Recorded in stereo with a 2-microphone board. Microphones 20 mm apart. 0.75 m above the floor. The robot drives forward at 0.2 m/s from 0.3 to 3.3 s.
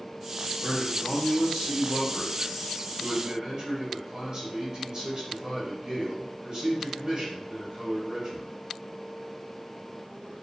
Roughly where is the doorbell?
No doorbell in this recording.